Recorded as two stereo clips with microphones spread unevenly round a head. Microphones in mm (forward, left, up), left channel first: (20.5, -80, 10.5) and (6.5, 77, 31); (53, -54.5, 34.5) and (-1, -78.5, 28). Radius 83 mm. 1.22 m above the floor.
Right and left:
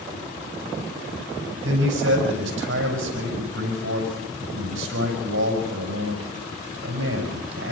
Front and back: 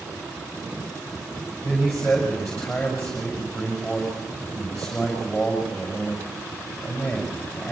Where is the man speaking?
110° left, 7 m.